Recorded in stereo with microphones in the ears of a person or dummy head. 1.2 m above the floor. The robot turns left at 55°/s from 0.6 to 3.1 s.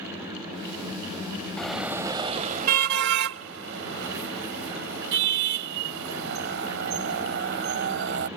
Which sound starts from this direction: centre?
A car horn, at 1.6 s.